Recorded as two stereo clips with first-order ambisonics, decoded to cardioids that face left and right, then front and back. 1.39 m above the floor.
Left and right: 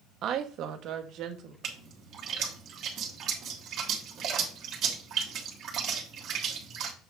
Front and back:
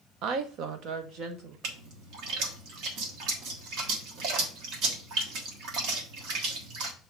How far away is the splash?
About 1.3 m.